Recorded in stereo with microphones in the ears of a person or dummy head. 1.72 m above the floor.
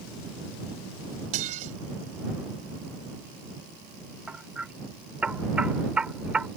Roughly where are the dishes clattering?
Right.